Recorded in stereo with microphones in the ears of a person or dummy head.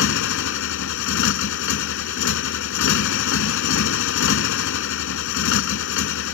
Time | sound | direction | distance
0.0 | a motorcycle | 70° left (ahead or behind) | ?